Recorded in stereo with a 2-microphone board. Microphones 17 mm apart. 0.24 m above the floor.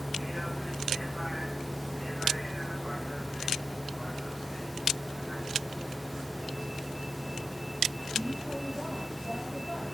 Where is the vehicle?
5° right (ahead or behind); by 9.9 s 20° right (ahead or behind).